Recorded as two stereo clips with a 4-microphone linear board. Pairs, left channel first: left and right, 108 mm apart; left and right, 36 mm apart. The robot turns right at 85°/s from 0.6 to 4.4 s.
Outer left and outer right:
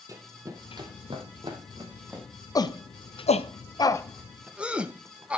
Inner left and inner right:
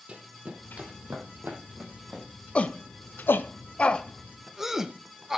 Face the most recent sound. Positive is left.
turn(degrees=-10)  # may be behind; listen again after turning